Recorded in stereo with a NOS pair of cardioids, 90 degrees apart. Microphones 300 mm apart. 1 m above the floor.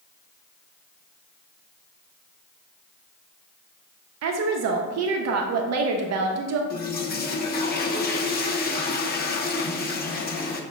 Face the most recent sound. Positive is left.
turn(degrees=30)